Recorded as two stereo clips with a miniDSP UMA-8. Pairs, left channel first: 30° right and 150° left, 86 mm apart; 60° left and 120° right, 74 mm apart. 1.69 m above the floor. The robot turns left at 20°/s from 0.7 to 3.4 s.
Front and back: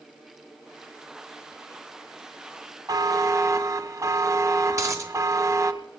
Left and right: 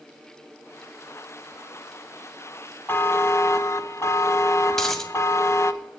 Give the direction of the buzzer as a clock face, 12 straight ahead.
8 o'clock.